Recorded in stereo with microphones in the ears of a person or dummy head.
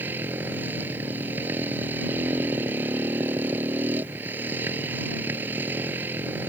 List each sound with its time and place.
0.0 s a motorcycle: 15° right (ahead or behind)